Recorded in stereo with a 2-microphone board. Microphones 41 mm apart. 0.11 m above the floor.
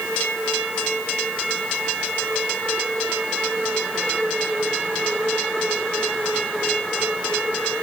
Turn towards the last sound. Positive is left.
No sound to turn to.